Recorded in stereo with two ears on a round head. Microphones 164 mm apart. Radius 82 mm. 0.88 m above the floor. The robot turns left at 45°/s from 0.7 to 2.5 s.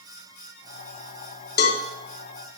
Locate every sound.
1.6 s a cowbell: 60° left (ahead or behind), 0.9 m; by 1.8 s 70° left (ahead or behind), 0.9 m